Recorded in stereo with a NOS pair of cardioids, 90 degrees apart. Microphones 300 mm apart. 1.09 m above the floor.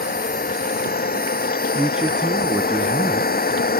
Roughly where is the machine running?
Ahead left.